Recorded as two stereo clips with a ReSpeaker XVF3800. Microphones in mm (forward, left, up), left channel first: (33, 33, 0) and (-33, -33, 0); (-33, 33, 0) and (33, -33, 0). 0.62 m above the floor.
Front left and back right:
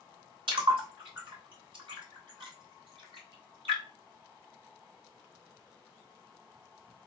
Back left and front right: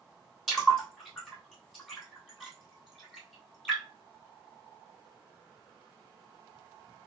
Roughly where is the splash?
Behind right.